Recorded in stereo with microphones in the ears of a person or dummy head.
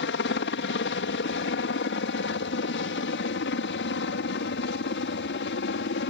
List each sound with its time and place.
0.0 s a helicopter: 55° left (ahead or behind)